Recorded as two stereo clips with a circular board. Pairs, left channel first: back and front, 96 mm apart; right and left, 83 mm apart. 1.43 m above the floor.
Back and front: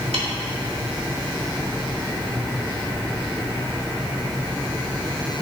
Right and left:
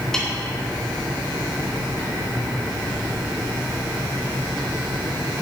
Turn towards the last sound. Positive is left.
turn(degrees=-5)